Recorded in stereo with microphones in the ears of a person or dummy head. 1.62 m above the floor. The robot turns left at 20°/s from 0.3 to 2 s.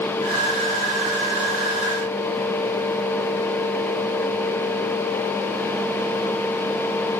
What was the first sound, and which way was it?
Only background noise.